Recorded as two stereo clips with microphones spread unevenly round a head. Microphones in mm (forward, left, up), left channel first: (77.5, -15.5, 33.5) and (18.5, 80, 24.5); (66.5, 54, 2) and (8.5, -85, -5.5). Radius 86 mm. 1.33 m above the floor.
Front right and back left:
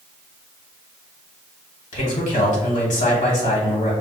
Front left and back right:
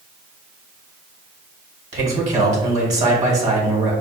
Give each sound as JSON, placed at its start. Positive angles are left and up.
{"t": 1.9, "sound": "a man speaking", "azimuth_deg": -70, "distance_m": 1.4}